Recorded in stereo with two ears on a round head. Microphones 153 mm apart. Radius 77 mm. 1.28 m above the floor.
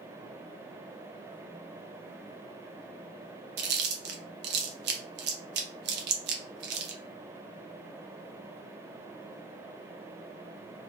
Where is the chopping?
I don't hear chopping.